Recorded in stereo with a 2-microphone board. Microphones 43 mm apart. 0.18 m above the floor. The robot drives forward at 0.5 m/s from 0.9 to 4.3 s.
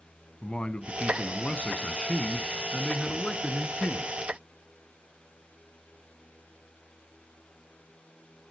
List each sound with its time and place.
0.4 s a man speaking: 25° left (ahead or behind), 1.4 m; by 4.2 s 15° left (ahead or behind), 2.5 m